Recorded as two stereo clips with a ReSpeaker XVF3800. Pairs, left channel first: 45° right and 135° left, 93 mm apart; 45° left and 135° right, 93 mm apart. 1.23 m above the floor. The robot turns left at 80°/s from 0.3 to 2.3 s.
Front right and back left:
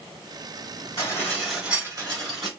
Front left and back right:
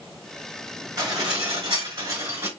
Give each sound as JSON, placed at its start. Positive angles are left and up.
{"t": 1.0, "sound": "dishes clattering", "azimuth_deg": -90, "distance_m": 3.0}